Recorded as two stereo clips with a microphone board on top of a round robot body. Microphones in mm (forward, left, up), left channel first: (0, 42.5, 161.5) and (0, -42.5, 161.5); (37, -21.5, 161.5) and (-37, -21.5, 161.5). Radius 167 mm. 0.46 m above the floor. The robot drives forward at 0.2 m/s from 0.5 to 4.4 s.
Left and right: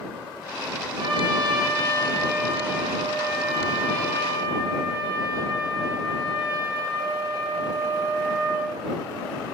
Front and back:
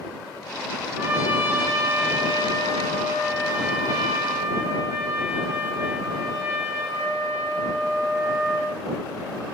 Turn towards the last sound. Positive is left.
turn(degrees=-145)